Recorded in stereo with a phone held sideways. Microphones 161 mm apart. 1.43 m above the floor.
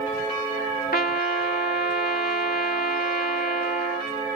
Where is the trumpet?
70° left (ahead or behind).